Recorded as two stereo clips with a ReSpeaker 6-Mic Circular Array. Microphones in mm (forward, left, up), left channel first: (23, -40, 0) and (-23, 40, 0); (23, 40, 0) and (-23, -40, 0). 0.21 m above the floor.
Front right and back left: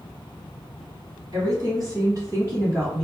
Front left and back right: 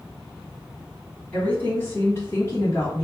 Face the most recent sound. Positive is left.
turn(degrees=75)